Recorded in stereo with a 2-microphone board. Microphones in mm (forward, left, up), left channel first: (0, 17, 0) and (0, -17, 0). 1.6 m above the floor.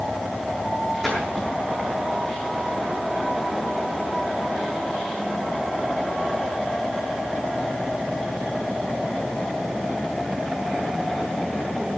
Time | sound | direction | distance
1.0 | a splash | centre (ahead or behind) | 8 m